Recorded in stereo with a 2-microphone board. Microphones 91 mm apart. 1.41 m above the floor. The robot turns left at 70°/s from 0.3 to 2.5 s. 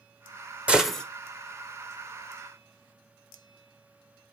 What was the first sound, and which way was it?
A gunshot, 15° right (ahead or behind).